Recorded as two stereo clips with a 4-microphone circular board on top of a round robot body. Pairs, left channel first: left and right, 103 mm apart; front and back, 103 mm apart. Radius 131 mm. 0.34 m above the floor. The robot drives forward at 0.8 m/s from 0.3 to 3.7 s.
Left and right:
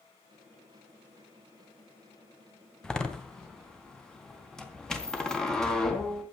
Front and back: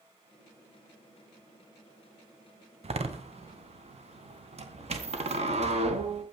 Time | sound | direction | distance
2.8 | a door slam | 175° left | 2.5 m